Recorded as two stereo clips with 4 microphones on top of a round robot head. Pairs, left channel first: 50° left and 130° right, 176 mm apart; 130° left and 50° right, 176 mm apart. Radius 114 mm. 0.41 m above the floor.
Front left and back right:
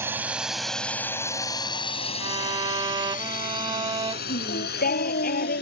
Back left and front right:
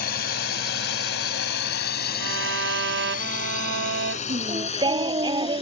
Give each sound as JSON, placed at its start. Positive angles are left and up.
{"t": 0.0, "sound": "a drone", "azimuth_deg": 155}
{"t": 2.2, "sound": "a violin", "azimuth_deg": -65}
{"t": 4.3, "sound": "singing", "azimuth_deg": 15}